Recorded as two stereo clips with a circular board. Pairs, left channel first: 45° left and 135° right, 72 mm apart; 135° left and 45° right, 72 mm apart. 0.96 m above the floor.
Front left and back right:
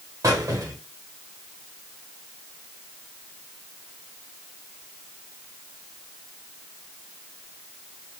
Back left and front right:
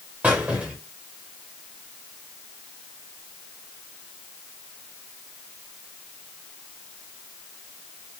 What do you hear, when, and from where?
0.2 s a squeak: 110° right, 1.0 m